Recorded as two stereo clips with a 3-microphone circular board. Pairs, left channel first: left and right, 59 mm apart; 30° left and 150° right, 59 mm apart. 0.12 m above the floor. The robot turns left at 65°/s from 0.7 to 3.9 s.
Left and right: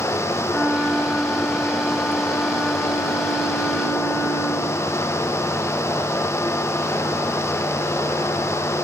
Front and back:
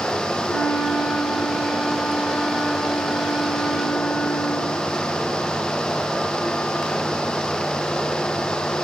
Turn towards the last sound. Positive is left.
turn(degrees=170)